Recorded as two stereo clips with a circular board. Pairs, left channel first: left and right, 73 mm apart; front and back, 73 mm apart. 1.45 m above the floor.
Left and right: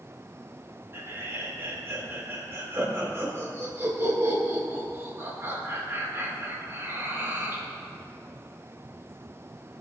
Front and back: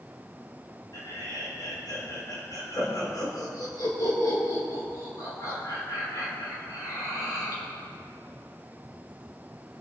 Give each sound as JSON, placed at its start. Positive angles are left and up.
{"t": 0.9, "sound": "laughter", "azimuth_deg": -35, "distance_m": 4.5}